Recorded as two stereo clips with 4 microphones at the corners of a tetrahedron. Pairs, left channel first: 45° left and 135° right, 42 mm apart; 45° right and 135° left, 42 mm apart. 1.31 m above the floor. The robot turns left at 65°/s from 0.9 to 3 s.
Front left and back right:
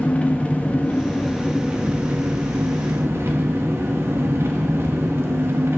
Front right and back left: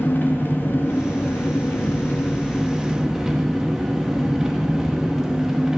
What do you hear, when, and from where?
0.0 s an engine running: 15° right, 1.5 m; by 5.8 s 150° right, 1.5 m